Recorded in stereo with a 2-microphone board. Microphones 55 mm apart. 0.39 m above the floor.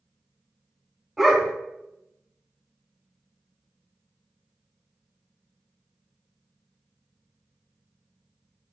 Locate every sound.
1.2 s a dog barking: 5° right (ahead or behind), 0.7 m